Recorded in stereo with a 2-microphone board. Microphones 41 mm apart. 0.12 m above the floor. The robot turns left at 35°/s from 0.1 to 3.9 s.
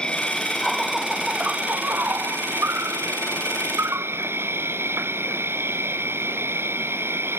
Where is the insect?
20° left; by 7.4 s 110° right.